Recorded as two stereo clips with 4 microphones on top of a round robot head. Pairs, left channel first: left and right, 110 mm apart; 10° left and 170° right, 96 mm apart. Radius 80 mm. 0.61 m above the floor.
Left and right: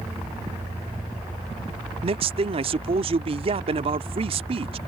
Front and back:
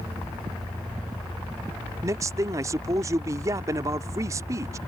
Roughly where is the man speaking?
Behind right.